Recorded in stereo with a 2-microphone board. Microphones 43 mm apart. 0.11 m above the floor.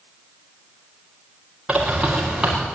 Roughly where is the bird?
Centre.